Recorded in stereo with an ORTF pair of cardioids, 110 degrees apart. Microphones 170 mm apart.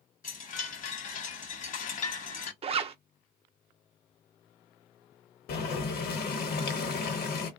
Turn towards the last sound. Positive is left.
turn(degrees=65)